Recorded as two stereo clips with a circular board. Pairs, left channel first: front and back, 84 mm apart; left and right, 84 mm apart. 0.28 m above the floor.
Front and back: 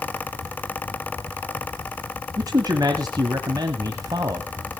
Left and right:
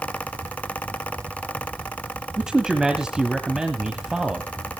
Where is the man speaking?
170° right, 1.3 m.